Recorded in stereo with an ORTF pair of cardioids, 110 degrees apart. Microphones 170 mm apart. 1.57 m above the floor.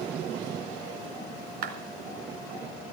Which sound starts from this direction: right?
A clap, at 1.6 s.